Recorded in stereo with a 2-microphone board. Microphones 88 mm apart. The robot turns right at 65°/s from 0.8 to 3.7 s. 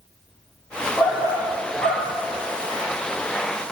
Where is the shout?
50° left, 3 m; by 2.1 s 125° left, 3 m.